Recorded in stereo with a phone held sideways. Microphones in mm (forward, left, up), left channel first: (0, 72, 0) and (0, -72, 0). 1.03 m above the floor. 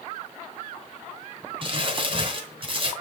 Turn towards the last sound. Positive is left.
turn(degrees=-35)  # may be behind; listen again after turning